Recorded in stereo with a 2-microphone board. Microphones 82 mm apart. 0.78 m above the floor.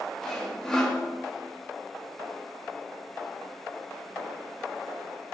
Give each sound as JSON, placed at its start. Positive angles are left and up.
{"t": 0.2, "sound": "sawing", "side_deg": 5, "distance_m": 2.5}